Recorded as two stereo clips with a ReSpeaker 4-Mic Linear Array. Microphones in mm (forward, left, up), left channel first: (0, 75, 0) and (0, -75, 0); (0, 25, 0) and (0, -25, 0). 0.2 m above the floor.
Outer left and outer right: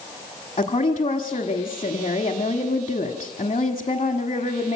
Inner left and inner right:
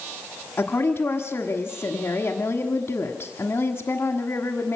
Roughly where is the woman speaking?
Left.